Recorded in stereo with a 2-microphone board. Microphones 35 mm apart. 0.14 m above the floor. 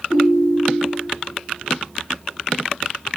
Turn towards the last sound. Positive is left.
turn(degrees=-15)  # may be behind; listen again after turning